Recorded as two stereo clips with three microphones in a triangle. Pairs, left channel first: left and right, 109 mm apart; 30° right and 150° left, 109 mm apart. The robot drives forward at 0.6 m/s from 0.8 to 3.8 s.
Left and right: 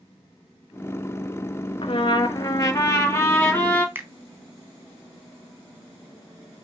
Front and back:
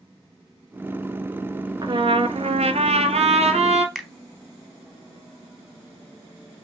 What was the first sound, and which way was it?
A trumpet, 115° left.